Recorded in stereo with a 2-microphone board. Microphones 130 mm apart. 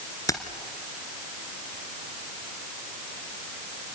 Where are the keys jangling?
25° left (ahead or behind), 2 m.